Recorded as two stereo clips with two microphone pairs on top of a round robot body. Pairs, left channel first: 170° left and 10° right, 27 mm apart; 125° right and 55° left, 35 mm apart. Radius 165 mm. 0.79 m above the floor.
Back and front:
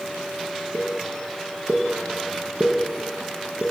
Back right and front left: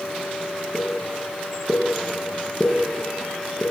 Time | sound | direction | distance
0.7 | a pop | 50° right | 5.5 m